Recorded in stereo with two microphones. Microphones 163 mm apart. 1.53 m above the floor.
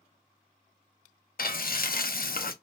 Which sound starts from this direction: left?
Frying, at 1.4 s.